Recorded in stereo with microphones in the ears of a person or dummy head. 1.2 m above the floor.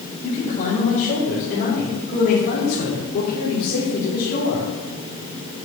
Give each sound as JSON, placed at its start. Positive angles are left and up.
{"t": 0.2, "sound": "a man speaking", "side_deg": 40, "distance_m": 5.0}